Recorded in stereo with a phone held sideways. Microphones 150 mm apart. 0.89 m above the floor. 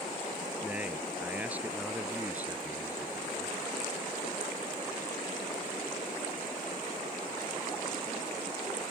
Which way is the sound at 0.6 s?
10° right (ahead or behind).